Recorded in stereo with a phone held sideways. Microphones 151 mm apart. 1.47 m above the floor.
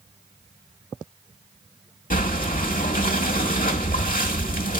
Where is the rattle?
No rattle in this recording.